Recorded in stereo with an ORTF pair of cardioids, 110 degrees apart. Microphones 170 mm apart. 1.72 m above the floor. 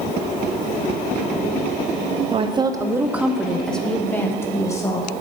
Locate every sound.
2.3 s a woman speaking: 35° right, 0.8 m; by 5.1 s 20° left, 1.8 m